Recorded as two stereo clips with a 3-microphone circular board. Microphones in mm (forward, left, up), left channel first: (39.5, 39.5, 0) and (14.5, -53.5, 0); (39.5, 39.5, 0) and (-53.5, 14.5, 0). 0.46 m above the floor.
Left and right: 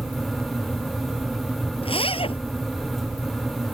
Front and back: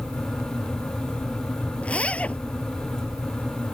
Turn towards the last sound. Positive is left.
turn(degrees=90)